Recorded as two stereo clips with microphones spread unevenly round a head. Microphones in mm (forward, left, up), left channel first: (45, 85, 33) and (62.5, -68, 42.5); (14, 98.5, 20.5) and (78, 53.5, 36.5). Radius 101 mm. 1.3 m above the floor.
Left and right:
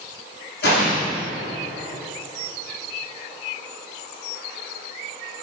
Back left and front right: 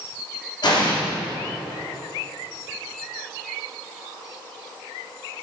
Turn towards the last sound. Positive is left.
turn(degrees=120)